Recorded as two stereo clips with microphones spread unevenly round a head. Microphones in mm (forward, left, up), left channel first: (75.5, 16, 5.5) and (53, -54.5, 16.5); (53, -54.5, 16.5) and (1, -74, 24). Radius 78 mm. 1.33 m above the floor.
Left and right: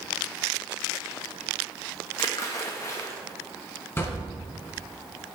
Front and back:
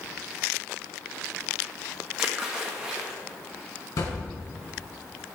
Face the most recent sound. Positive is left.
turn(degrees=10)